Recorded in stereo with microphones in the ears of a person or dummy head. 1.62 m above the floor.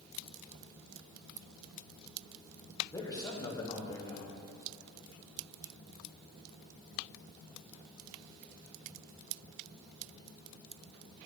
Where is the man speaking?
25° left (ahead or behind), 1.1 m.